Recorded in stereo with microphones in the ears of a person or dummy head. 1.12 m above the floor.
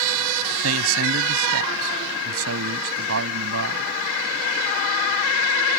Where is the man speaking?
75° right (ahead or behind).